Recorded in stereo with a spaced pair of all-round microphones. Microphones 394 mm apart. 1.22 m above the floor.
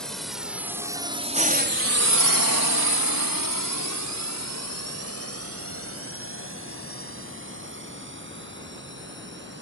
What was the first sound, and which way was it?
A drone, centre (ahead or behind).